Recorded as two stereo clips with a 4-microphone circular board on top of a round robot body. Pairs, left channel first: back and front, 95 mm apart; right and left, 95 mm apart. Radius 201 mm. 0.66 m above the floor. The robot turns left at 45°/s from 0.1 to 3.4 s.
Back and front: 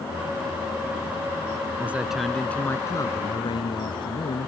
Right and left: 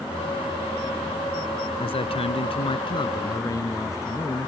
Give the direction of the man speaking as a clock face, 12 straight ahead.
2 o'clock.